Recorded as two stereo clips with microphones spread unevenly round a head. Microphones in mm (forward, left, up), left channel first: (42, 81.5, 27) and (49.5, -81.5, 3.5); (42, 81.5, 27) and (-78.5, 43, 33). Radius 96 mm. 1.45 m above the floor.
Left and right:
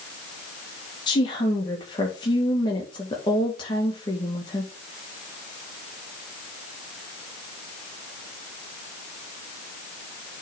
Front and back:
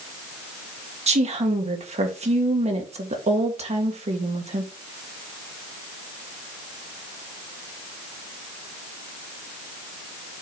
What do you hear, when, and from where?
1.1 s a woman speaking: 165° left, 1.9 m